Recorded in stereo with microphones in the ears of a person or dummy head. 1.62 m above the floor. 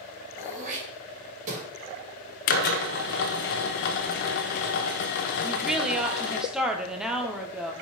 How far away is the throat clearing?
About 3 m.